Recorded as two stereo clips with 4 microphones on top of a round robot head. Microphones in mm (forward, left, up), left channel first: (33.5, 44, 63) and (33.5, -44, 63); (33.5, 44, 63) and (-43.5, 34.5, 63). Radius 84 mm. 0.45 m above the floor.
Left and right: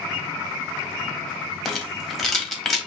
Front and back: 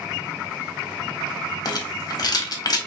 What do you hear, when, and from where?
1.6 s a rattle: 5° left, 1.6 m